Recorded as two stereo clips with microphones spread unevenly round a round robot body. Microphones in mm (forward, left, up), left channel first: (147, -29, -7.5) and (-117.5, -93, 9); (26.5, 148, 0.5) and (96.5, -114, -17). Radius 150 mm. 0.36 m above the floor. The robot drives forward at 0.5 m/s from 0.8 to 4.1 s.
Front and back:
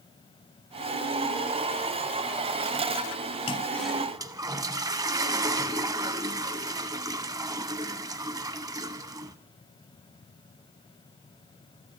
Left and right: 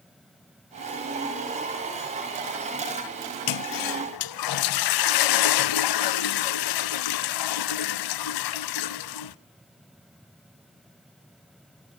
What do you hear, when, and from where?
3.5 s a toilet flushing: 85° left, 0.6 m; by 9.3 s 115° left, 0.7 m